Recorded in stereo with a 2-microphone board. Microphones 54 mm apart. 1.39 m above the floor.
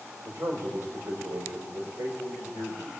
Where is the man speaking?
55° right (ahead or behind), 4 m.